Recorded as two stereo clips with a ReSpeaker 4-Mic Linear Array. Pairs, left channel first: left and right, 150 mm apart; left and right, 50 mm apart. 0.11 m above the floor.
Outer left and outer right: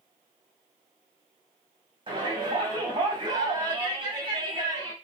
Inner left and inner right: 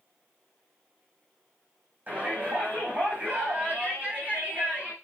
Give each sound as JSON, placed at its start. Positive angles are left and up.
{"t": 2.1, "sound": "a shout", "side_deg": -30, "distance_m": 5.0}